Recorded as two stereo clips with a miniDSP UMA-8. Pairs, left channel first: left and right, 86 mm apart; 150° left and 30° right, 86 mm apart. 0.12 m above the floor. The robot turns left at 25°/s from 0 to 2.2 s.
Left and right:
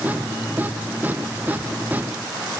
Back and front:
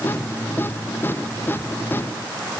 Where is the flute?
No flute in this recording.